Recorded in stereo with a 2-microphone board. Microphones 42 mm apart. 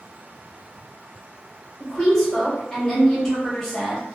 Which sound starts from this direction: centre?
A woman speaking, at 1.8 s.